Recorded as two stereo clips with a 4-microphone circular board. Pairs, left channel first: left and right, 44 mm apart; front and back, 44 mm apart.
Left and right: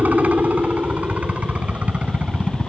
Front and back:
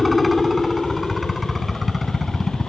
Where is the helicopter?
90° right; by 2.7 s 100° right.